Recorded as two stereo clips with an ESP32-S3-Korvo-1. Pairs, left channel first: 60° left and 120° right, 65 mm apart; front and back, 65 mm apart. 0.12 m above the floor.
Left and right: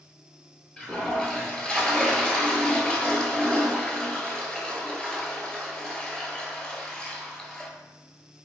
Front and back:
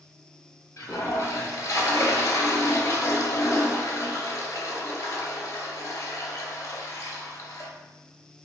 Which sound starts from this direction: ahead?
A toilet flushing, at 0.8 s.